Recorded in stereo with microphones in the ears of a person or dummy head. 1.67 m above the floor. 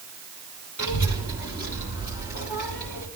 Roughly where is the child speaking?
Left.